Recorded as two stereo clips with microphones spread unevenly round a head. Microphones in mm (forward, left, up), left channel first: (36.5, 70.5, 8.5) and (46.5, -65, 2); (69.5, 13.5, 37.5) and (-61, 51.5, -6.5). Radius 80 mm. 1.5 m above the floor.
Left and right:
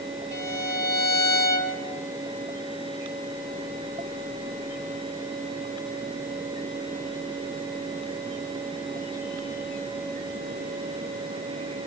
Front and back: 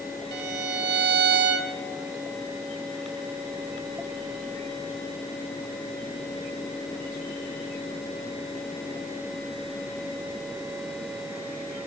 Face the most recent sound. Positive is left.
turn(degrees=165)